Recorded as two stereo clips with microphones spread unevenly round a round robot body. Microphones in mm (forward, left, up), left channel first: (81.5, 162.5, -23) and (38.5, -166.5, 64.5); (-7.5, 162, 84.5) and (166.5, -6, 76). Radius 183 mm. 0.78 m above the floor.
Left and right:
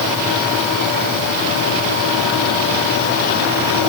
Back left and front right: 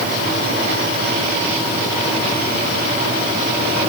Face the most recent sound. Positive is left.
No sound to turn to.